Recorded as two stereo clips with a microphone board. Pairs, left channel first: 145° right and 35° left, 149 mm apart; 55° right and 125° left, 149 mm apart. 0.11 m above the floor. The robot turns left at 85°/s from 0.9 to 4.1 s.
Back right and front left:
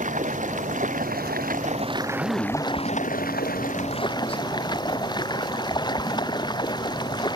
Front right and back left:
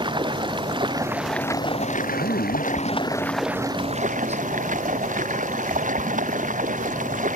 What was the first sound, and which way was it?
Running water, 65° left.